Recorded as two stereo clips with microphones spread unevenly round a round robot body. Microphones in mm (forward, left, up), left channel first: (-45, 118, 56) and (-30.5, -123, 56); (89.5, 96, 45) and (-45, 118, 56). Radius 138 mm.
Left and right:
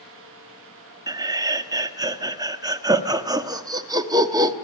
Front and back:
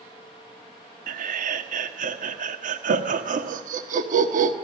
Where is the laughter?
160° right, 1.3 m.